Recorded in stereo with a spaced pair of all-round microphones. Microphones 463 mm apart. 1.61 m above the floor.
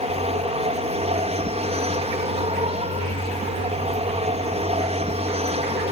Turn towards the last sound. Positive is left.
turn(degrees=-15)  # may be behind; listen again after turning